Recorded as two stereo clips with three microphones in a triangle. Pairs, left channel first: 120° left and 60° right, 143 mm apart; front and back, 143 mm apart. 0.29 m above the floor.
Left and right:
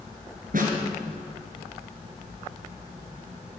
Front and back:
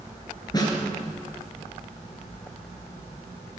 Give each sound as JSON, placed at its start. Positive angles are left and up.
{"t": 0.5, "sound": "a snare drum", "azimuth_deg": -60, "distance_m": 4.5}